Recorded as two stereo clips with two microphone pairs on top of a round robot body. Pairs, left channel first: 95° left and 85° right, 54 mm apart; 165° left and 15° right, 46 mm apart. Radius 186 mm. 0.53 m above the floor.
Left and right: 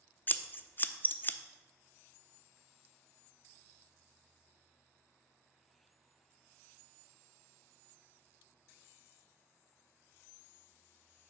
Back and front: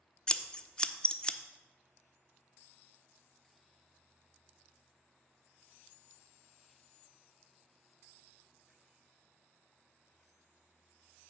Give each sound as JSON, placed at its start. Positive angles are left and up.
{"t": 0.3, "sound": "scissors", "azimuth_deg": 90, "distance_m": 0.6}